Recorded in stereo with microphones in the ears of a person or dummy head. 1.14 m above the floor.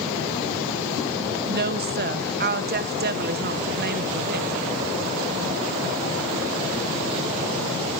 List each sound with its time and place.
1.5 s a woman speaking: 45° right (ahead or behind), 0.7 m